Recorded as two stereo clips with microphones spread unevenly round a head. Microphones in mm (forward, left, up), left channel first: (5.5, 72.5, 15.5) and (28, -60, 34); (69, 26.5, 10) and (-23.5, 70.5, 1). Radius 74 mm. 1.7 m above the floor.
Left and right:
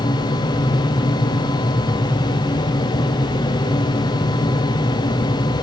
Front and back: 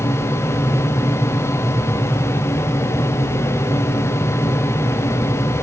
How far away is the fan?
About 1.0 m.